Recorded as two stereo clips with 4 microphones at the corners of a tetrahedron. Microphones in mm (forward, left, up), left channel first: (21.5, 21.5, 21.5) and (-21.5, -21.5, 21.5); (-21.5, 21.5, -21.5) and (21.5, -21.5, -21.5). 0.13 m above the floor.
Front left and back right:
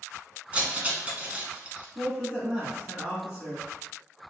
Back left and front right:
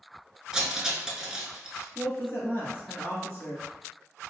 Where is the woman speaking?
160° left, 1.6 m.